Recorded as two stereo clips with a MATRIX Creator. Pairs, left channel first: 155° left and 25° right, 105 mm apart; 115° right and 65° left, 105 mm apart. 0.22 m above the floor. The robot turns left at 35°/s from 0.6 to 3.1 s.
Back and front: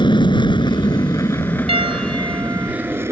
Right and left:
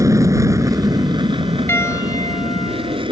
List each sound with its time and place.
0.0 s an aircraft: 125° left; by 3.1 s 40° left
1.7 s a piano: 45° right; by 3.0 s 90° right